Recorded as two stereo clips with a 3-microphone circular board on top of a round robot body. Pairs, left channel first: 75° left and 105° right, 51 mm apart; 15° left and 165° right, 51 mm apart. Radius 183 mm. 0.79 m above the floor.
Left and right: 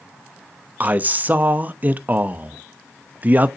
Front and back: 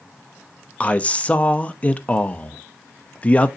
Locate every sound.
0.8 s a man speaking: 50° right, 0.8 m